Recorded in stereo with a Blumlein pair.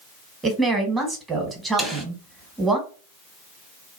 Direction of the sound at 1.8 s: 5° right.